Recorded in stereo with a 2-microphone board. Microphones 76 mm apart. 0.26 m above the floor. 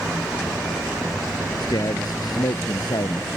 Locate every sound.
1.6 s a man speaking: 65° left (ahead or behind)